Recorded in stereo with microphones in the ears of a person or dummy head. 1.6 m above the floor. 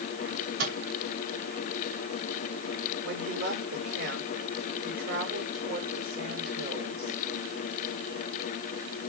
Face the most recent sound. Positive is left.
turn(degrees=-65)  # may be behind; listen again after turning